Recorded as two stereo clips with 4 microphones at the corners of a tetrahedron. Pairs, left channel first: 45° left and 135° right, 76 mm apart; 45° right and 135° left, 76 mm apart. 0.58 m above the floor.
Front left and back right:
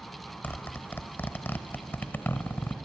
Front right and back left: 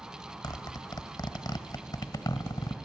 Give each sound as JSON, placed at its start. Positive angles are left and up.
{"t": 0.4, "sound": "a zipper", "azimuth_deg": -20, "distance_m": 1.0}